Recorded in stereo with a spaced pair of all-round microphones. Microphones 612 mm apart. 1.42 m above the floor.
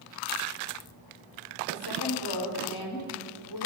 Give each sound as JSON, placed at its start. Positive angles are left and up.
{"t": 1.7, "sound": "a woman speaking", "side_deg": 40, "distance_m": 5.0}